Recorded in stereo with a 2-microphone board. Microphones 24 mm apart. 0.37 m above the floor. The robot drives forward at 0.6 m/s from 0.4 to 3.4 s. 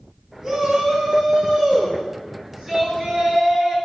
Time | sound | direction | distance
0.4 | a shout | 15° right (ahead or behind) | 4 m